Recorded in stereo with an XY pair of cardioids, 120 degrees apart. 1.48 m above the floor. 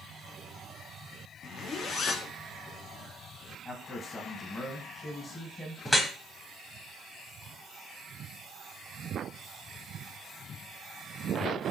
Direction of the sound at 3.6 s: 30° left.